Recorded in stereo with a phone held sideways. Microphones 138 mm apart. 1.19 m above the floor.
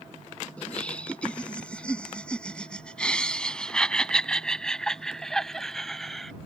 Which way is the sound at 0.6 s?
10° left (ahead or behind).